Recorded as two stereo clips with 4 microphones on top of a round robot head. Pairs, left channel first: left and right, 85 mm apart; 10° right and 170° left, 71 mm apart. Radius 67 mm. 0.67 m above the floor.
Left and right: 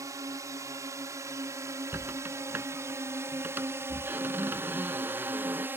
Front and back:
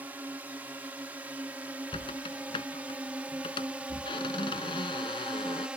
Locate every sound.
0.0 s a drone: 130° right
1.9 s a squeak: 15° right